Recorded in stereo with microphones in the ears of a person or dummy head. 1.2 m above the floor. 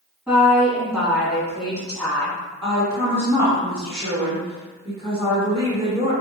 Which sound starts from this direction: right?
A woman speaking, at 2.6 s.